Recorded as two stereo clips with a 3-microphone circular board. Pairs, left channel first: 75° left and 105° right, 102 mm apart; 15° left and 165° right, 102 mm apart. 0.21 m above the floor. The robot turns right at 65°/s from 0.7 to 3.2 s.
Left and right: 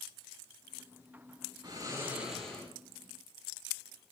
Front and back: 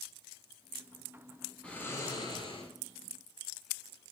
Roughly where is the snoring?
Ahead right.